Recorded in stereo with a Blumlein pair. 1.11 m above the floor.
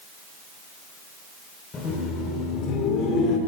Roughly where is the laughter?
Ahead.